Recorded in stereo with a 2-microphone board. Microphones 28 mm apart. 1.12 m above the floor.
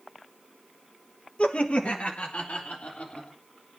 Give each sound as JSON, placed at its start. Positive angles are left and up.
{"t": 1.4, "sound": "laughter", "side_deg": 45, "distance_m": 1.3}